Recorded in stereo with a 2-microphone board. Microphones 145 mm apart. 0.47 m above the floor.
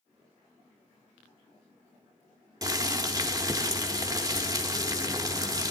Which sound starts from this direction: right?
Boiling, at 2.6 s.